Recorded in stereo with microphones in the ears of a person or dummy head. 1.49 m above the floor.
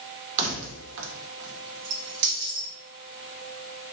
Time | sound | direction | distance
0.4 | keys jangling | 35° right (ahead or behind) | 1.1 m